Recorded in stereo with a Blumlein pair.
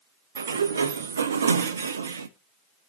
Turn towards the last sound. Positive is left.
turn(degrees=-70)